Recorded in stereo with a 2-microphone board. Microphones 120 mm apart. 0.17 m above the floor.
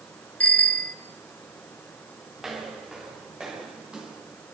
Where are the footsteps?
5° right (ahead or behind), 6.5 m; by 4.2 s 10° right (ahead or behind), 7.5 m.